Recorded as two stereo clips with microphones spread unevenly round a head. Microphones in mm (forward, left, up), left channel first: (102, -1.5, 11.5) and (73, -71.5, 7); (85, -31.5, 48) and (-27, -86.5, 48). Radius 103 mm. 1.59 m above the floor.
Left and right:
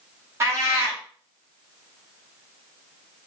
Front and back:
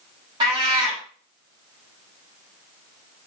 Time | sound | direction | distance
0.4 | a cat meowing | 140° right | 1.2 m